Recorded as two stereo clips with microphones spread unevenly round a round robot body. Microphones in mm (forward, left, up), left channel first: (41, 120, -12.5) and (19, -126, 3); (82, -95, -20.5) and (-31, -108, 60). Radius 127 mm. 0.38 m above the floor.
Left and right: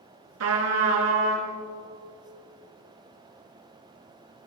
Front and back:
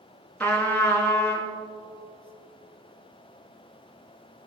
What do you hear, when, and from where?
0.4 s a trumpet: 65° right, 2.5 m